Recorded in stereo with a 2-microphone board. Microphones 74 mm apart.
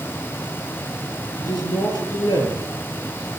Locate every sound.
1.4 s a man speaking: 70° left (ahead or behind), 7.5 m